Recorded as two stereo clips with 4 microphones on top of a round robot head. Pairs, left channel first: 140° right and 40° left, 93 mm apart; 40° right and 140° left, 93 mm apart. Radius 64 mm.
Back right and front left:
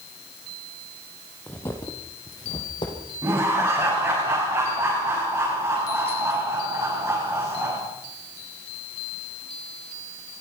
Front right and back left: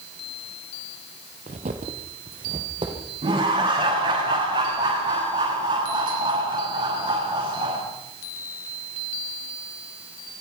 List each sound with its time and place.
1.5 s footsteps: 150° left, 2.5 m; by 3.0 s straight behind, 4 m
3.2 s laughter: 110° left, 8.5 m